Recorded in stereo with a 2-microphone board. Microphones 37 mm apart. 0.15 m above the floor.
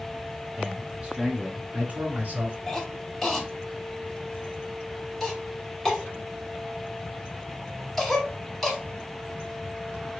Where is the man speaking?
15° right (ahead or behind), 1.4 m; by 2.6 s 45° right (ahead or behind), 1.9 m.